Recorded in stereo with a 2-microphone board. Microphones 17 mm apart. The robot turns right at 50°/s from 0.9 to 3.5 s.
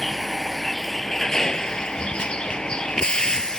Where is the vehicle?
5° left; by 3.6 s 135° left.